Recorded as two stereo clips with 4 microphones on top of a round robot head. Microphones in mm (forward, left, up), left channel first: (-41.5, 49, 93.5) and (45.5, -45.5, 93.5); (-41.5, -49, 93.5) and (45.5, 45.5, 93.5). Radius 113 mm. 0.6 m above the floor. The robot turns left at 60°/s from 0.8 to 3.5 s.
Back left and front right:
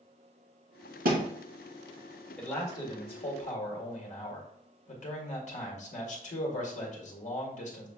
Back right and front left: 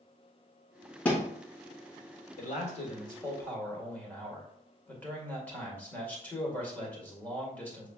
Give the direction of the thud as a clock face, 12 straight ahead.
2 o'clock.